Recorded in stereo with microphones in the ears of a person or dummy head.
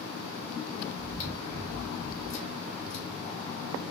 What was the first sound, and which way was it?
Chewing, 45° left (ahead or behind).